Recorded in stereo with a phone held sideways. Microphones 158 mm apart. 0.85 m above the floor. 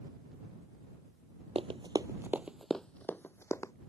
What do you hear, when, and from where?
1.6 s running footsteps: 40° right (ahead or behind); by 3.7 s 20° left (ahead or behind)